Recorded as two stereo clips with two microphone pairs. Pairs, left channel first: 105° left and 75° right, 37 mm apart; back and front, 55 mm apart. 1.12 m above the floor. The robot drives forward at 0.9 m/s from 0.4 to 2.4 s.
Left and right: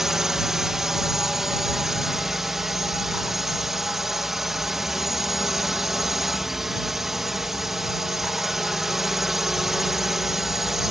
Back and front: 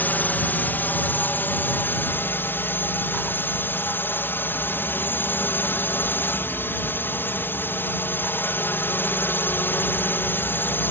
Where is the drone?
150° right; by 10.9 s 155° right.